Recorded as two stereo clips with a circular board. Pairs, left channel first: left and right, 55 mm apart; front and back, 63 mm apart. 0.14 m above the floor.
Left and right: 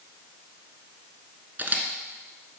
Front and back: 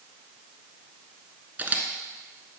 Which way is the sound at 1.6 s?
130° right.